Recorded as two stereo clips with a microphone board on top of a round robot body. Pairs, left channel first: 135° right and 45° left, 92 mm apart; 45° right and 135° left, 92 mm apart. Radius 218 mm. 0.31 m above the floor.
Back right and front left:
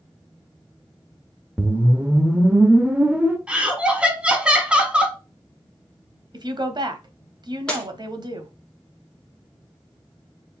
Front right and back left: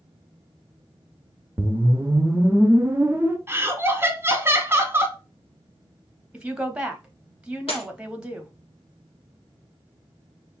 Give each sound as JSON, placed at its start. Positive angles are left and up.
{"t": 1.6, "sound": "a whoosh", "azimuth_deg": 105, "distance_m": 0.9}
{"t": 3.5, "sound": "laughter", "azimuth_deg": 110, "distance_m": 1.4}
{"t": 6.3, "sound": "a woman speaking", "azimuth_deg": 60, "distance_m": 1.2}
{"t": 7.7, "sound": "breaking glass", "azimuth_deg": -55, "distance_m": 1.5}